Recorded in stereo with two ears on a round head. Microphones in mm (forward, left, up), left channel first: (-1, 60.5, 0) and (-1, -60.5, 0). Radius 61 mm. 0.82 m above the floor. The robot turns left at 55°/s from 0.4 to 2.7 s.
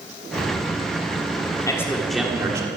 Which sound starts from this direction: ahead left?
A man speaking, at 1.7 s.